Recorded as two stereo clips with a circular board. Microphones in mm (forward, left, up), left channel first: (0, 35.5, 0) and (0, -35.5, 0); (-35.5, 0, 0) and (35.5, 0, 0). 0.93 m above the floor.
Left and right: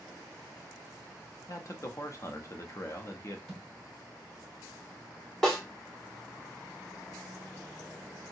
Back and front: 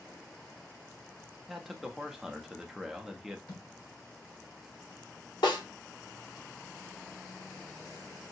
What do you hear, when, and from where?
1.5 s a man speaking: 85° left, 0.5 m
3.5 s a thud: straight behind, 1.5 m
5.4 s a snare drum: 175° left, 1.3 m